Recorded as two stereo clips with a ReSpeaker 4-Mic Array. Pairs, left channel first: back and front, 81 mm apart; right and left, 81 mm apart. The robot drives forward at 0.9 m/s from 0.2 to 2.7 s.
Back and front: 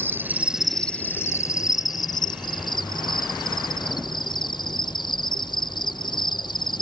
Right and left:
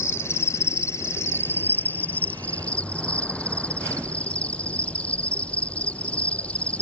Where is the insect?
50° right; by 6.8 s 165° right.